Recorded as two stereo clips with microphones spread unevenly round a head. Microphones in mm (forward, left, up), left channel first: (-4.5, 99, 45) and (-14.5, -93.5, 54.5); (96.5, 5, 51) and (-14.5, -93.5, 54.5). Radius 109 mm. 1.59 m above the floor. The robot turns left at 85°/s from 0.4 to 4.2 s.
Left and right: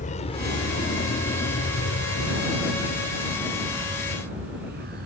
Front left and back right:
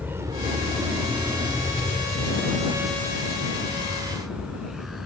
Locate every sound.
0.0 s a vehicle: 140° left; by 5.1 s 50° right